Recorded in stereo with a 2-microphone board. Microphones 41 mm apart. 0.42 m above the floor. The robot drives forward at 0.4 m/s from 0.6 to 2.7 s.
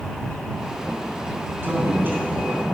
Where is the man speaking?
55° right (ahead or behind), 3 m; by 2.6 s 50° right (ahead or behind), 3 m.